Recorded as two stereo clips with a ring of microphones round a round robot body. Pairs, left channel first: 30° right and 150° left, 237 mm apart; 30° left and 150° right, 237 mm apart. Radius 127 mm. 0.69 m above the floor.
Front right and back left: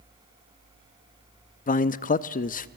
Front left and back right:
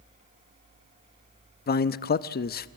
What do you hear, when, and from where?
1.7 s a man speaking: 5° left, 0.7 m